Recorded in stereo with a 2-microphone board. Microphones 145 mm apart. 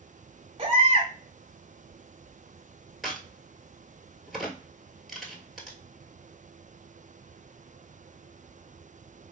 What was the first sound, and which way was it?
A baby crying, 40° right (ahead or behind).